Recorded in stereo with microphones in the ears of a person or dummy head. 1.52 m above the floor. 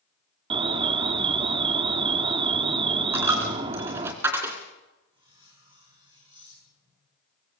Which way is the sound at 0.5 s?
30° right (ahead or behind).